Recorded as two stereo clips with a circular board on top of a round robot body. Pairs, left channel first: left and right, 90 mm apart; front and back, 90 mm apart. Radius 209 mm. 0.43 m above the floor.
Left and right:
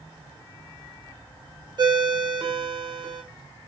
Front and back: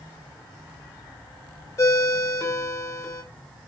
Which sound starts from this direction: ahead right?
A ringtone, at 1.8 s.